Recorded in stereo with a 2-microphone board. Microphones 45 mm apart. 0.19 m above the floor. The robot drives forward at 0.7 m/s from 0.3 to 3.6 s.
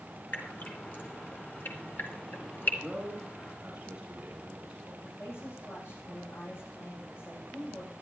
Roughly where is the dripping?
Left.